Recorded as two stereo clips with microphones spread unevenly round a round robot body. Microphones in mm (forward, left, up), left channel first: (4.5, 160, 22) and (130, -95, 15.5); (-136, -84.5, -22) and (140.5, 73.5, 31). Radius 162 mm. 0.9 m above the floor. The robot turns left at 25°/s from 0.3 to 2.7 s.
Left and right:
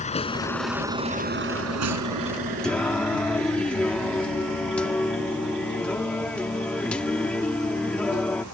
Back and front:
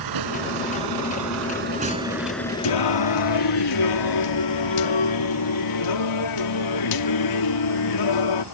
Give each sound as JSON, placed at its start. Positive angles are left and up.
{"t": 0.0, "sound": "a vehicle", "azimuth_deg": 50}
{"t": 2.6, "sound": "singing", "azimuth_deg": -155}